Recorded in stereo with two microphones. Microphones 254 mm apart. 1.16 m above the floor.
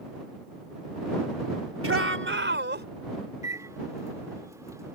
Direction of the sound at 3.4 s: 15° right (ahead or behind).